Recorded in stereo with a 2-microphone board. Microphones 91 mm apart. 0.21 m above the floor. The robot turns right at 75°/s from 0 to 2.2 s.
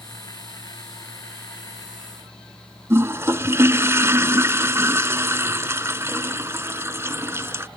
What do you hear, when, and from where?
2.9 s a toilet flushing: 30° right (ahead or behind)